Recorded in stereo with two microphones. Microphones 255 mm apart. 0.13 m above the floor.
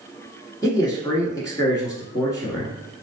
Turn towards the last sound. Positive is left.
turn(degrees=15)  # may be behind; listen again after turning